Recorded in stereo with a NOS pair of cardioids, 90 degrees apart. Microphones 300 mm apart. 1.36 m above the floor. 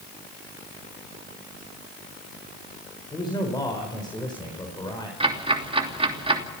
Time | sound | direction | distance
3.1 | a man speaking | 15° left | 5 m
5.2 | ticking | 20° right | 3 m